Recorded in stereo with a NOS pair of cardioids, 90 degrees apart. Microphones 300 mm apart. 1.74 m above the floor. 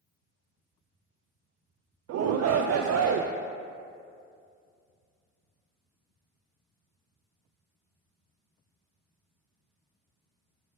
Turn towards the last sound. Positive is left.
turn(degrees=-55)